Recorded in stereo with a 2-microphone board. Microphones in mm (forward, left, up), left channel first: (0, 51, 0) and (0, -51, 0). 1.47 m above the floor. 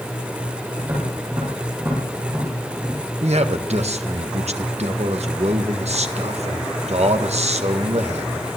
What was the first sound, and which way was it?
Tapping, 30° right (ahead or behind).